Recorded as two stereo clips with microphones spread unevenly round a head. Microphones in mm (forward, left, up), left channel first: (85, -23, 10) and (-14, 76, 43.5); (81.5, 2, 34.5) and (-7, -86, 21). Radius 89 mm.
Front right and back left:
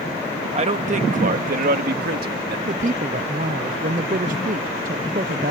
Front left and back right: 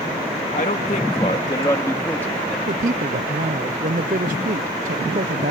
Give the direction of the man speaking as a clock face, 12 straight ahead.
9 o'clock.